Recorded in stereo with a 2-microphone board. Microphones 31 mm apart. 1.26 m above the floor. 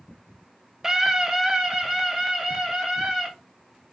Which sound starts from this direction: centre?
A scream, at 0.8 s.